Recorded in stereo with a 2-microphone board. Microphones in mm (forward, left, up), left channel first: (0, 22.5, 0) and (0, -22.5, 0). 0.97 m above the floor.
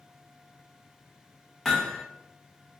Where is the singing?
I don't hear singing.